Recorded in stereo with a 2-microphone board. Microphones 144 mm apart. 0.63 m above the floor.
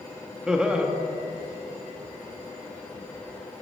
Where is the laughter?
5° right (ahead or behind), 0.6 m.